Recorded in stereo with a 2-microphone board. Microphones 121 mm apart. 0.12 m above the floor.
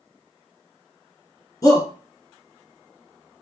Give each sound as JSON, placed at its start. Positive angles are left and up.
{"t": 1.6, "sound": "a shout", "side_deg": 30, "distance_m": 1.6}